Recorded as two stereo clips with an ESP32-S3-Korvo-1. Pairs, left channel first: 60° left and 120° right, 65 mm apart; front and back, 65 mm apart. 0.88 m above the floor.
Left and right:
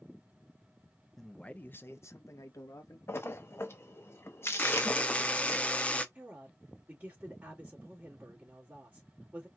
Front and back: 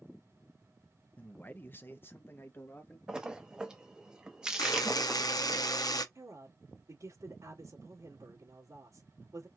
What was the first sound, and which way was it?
A man speaking, 20° right.